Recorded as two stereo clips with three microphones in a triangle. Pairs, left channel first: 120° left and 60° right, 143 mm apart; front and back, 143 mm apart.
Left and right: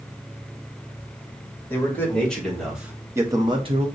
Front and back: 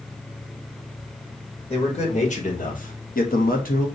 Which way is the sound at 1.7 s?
45° left.